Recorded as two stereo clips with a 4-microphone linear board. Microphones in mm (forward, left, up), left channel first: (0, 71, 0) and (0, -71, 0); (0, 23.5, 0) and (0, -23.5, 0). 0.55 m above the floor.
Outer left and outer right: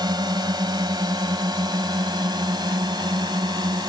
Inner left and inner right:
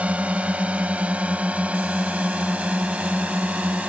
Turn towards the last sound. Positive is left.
turn(degrees=-30)  # may be behind; listen again after turning